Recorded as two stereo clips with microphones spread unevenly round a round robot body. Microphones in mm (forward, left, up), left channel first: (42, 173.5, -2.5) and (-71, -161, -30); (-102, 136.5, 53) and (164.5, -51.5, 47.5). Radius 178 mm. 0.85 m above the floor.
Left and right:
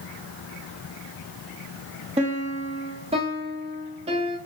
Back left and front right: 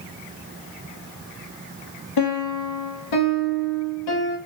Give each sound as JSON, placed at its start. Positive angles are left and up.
{"t": 2.2, "sound": "a piano", "azimuth_deg": 175, "distance_m": 0.6}